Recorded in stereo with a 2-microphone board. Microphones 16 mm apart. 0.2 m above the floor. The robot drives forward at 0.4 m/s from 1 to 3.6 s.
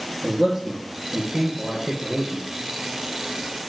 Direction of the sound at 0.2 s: 45° right (ahead or behind).